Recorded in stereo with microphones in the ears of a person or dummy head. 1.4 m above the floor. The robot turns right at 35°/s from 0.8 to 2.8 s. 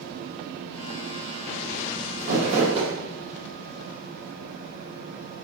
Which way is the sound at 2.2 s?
55° right (ahead or behind).